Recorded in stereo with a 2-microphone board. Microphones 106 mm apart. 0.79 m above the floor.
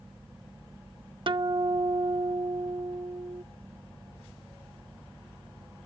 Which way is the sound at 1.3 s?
55° right (ahead or behind).